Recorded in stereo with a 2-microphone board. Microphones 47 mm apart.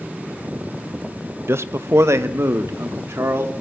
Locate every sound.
1.5 s a man speaking: 60° right (ahead or behind), 0.7 m; by 3.5 s 75° right (ahead or behind), 2.5 m